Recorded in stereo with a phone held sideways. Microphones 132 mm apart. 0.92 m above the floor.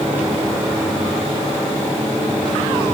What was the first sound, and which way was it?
Only background noise.